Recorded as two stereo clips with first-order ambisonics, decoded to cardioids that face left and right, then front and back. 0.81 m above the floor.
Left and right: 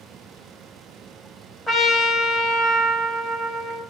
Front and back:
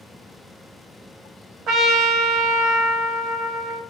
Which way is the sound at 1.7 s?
Straight behind.